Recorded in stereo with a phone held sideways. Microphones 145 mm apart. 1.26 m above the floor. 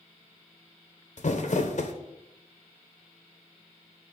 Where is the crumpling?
60° left (ahead or behind), 0.7 m.